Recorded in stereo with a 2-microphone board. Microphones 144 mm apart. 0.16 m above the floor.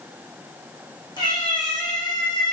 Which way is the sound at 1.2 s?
30° left (ahead or behind).